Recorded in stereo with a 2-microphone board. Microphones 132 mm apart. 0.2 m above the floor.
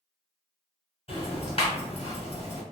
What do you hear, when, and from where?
1.1 s ticking: 45° left (ahead or behind), 1.8 m